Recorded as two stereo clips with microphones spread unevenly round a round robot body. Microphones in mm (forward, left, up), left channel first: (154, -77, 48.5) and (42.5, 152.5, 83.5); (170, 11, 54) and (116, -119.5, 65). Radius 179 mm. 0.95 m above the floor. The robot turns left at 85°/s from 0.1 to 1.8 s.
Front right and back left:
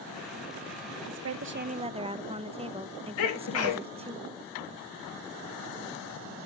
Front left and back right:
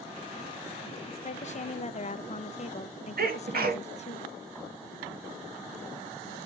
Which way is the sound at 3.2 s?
95° right.